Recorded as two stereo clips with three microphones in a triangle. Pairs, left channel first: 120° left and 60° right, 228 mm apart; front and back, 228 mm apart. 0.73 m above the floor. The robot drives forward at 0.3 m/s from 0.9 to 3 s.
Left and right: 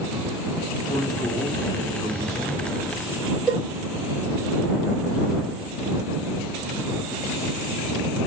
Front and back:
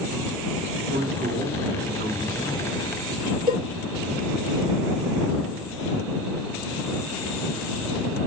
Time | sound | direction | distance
0.9 | a man speaking | 170° right | 1.6 m
3.5 | a cowbell | 145° right | 1.5 m